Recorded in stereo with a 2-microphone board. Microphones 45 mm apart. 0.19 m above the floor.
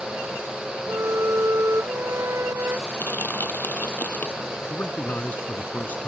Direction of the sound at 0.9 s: 75° right (ahead or behind).